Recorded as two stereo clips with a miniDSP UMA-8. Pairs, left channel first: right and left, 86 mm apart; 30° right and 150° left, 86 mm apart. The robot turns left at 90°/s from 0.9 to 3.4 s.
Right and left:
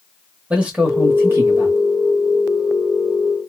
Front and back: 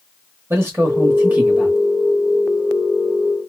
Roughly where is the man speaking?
Behind left.